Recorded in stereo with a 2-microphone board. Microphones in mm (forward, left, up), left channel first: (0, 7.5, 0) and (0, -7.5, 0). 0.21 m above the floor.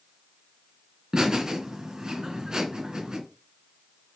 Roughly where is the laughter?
Right.